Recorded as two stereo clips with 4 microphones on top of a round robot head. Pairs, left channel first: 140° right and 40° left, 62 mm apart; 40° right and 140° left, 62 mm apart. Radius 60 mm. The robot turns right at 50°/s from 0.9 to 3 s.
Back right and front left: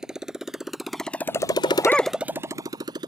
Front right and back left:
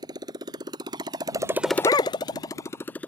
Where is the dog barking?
75° right; by 2.1 s 50° right.